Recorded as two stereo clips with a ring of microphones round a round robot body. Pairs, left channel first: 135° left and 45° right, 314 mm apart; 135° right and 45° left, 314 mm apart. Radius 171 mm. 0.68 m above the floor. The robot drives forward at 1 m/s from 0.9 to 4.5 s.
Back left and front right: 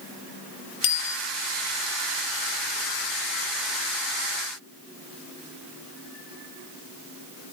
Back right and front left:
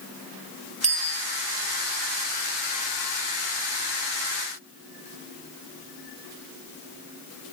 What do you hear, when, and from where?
0.8 s a bicycle bell: 115° left, 3 m; by 1.2 s 120° left, 3 m